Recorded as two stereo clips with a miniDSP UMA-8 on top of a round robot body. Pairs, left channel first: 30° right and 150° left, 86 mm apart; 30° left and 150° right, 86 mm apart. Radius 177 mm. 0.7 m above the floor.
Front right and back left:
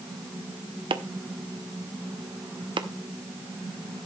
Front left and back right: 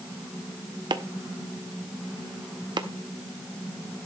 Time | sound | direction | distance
0.9 | chopping | 175° left | 1.0 m